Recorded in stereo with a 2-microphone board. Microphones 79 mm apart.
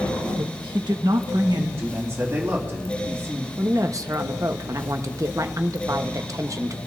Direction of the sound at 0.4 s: 70° right (ahead or behind).